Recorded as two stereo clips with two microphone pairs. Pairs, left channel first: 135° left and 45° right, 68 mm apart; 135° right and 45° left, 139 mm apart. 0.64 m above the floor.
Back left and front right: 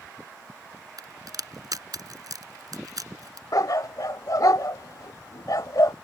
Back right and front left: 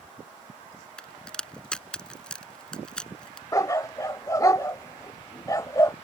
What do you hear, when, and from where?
1.0 s a crack: 50° right
3.5 s a dog barking: 160° left